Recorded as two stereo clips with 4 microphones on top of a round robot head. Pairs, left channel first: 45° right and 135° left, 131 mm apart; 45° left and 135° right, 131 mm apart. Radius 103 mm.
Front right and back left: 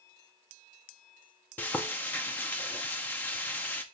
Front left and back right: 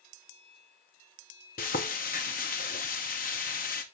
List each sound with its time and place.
1.6 s frying: 30° left, 0.7 m